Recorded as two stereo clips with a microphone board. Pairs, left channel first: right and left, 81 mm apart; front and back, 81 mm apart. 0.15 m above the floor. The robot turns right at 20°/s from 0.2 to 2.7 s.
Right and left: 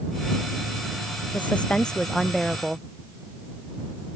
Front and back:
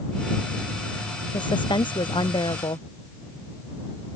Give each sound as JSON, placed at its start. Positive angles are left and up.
{"t": 1.3, "sound": "a woman speaking", "azimuth_deg": -20}